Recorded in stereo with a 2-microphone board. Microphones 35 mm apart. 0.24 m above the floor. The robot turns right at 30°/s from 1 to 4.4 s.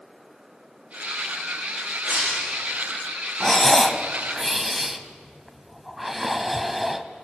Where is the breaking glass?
25° right (ahead or behind), 8.5 m; by 2.6 s 45° right (ahead or behind), 8.5 m.